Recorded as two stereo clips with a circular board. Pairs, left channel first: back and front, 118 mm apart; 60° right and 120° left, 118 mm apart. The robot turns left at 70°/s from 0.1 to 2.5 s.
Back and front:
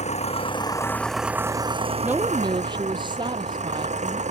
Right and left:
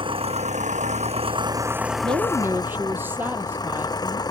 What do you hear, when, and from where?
0.0 s an engine running: 165° left; by 4.3 s 5° right
2.0 s a woman speaking: 80° left; by 4.2 s 45° left